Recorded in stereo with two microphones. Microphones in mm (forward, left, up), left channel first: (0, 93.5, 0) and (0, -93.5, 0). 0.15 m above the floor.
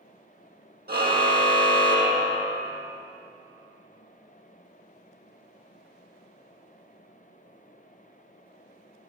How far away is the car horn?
About 2 m.